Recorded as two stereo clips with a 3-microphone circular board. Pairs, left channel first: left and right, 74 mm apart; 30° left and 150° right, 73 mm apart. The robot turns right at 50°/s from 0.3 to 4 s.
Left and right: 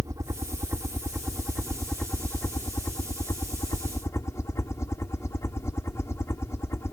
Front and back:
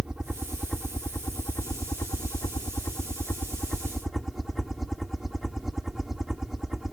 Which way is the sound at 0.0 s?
70° right.